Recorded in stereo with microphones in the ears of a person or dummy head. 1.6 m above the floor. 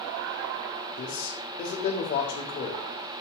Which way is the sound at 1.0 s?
35° left (ahead or behind).